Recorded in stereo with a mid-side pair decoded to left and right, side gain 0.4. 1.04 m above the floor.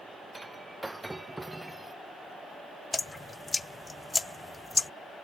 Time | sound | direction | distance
0.3 | breaking glass | 15° right | ?
2.9 | dripping | 25° left | ?